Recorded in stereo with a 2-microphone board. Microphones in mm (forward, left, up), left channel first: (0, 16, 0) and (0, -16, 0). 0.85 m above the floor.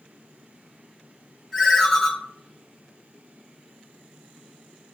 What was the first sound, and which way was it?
A ringtone, 15° left (ahead or behind).